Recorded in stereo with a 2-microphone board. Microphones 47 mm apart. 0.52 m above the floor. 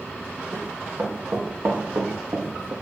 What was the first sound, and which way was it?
Running footsteps, 55° right (ahead or behind).